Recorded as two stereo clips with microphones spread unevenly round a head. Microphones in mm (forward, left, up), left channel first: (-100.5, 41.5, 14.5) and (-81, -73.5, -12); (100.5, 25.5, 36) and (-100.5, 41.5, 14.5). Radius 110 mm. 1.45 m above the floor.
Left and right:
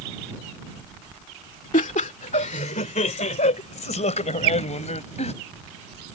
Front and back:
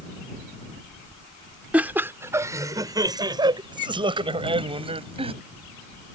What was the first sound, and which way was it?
Laughter, 90° left.